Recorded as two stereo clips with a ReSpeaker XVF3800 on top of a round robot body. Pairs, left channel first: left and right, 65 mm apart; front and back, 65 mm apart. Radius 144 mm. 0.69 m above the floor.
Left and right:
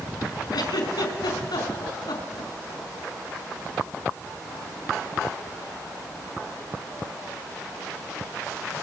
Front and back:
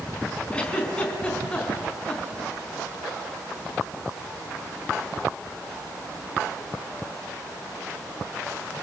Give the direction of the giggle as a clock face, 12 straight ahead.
10 o'clock.